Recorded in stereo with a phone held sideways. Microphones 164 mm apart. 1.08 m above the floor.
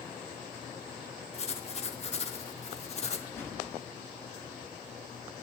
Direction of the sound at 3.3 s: 15° left (ahead or behind).